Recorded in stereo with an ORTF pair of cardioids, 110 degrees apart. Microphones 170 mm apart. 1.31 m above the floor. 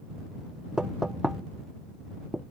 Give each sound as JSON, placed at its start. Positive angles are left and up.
{"t": 0.8, "sound": "knocking", "azimuth_deg": -5}